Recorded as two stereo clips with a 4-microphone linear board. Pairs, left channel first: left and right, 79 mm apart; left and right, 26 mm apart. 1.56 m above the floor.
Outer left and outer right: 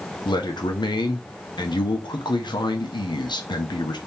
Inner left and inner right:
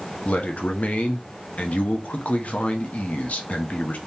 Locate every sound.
0.2 s a man speaking: 70° left (ahead or behind), 1.0 m